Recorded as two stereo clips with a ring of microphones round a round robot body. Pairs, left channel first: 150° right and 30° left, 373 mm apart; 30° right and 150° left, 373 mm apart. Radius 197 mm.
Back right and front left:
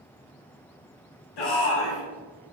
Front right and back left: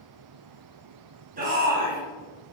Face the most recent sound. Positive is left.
turn(degrees=-145)